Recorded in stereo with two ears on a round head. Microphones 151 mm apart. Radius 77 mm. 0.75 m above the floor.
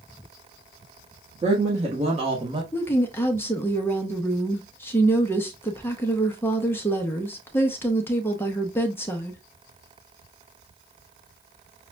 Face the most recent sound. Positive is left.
turn(degrees=15)  # may be behind; listen again after turning